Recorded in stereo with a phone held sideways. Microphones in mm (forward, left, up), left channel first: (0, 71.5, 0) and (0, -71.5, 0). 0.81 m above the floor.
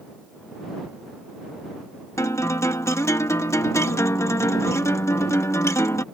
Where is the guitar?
20° left (ahead or behind).